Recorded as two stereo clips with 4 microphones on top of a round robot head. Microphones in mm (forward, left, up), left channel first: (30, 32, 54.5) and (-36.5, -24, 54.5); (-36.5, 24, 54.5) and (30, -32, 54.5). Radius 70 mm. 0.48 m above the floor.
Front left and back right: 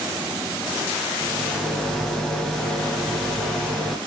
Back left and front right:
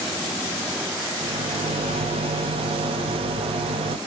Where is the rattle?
45° right, 0.9 m.